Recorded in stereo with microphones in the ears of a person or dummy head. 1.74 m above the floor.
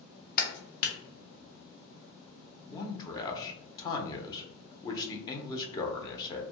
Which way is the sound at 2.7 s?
25° left (ahead or behind).